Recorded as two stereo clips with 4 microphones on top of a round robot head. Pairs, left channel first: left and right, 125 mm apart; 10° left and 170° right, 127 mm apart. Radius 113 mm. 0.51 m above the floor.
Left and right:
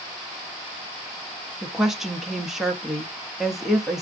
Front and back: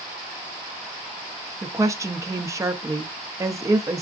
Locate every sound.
1.6 s a woman speaking: 175° right, 0.7 m